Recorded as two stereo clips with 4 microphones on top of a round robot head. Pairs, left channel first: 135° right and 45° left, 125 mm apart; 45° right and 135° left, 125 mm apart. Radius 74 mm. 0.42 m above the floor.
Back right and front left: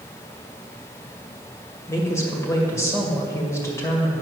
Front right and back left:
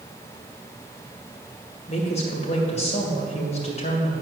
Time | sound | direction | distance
1.9 | a woman speaking | 70° right | 2 m